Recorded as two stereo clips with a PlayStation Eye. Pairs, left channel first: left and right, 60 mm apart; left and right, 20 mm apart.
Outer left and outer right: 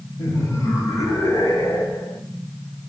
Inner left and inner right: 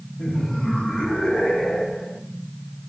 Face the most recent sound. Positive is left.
turn(degrees=70)  # may be behind; listen again after turning